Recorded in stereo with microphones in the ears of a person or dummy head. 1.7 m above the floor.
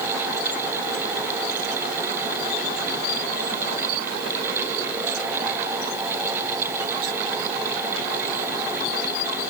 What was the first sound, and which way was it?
Only background noise.